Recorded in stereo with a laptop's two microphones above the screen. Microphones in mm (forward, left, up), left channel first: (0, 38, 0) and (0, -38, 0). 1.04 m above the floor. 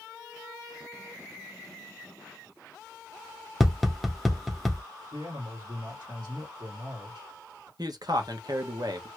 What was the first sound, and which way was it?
Tapping, centre (ahead or behind).